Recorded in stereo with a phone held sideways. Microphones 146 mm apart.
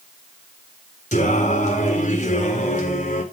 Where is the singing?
55° left (ahead or behind), 4 m.